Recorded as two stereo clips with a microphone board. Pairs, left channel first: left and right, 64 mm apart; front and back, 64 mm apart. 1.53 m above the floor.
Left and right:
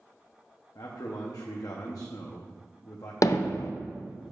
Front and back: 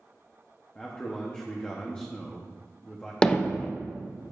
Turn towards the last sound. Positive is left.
turn(degrees=75)